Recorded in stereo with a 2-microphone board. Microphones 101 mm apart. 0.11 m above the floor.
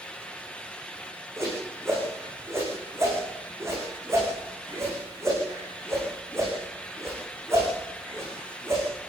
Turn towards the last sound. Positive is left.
turn(degrees=-25)  # may be behind; listen again after turning